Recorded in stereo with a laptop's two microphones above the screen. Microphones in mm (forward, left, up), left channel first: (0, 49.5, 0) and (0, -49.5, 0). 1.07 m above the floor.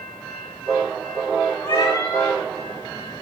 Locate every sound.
1.6 s a cat meowing: 45° left (ahead or behind), 2.5 m